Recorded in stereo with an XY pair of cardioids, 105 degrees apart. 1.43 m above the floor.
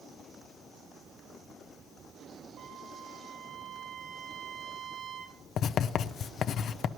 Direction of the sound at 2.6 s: 70° right.